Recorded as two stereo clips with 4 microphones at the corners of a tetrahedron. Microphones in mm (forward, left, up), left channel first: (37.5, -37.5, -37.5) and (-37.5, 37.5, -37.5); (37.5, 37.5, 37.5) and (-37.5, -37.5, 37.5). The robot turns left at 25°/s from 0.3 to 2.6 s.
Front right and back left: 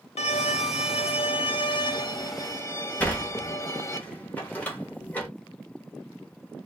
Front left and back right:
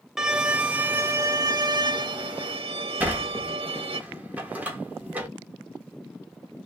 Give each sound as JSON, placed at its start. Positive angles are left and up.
{"t": 0.2, "sound": "a violin", "azimuth_deg": -50, "distance_m": 0.6}
{"t": 3.0, "sound": "a sliding door", "azimuth_deg": -90, "distance_m": 1.2}